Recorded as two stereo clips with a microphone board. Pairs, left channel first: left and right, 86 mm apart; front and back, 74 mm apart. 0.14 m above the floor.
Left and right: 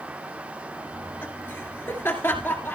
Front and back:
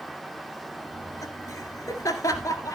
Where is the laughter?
30° left, 2.0 m.